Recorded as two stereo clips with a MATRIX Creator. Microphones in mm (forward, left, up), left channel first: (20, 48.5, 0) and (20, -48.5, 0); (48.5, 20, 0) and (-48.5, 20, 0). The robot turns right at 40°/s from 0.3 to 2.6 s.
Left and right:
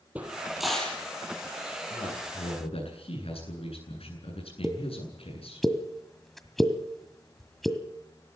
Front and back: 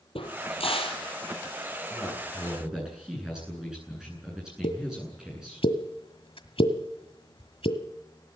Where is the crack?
15° right, 4.5 m; by 1.0 s 15° left, 4.5 m.